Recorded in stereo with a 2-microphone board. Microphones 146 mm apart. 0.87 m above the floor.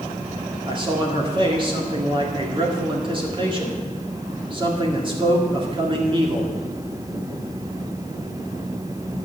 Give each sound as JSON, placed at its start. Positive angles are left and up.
{"t": 0.7, "sound": "a man speaking", "side_deg": -35, "distance_m": 1.8}